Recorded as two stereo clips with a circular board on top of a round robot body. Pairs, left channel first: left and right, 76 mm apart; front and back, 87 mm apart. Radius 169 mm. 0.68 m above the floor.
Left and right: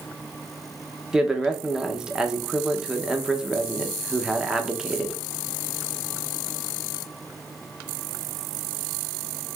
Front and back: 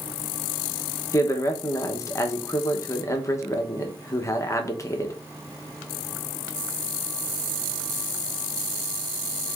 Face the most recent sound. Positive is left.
turn(degrees=-15)